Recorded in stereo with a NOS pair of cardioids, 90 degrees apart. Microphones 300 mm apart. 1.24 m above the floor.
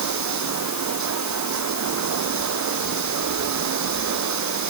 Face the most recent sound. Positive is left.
turn(degrees=-65)